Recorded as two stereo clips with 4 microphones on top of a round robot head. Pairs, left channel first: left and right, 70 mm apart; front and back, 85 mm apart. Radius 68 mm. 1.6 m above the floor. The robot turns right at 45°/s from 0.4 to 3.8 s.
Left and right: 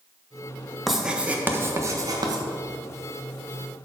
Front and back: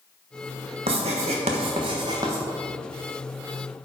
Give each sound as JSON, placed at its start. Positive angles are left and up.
{"t": 0.9, "sound": "writing", "azimuth_deg": 180, "distance_m": 1.3}